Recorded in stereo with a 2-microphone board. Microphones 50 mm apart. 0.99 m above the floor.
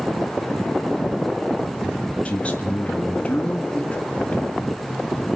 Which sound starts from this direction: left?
A man speaking, at 2.2 s.